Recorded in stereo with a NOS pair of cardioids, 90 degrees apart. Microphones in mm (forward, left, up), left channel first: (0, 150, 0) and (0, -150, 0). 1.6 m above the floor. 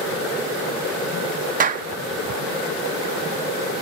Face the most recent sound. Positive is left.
turn(degrees=-25)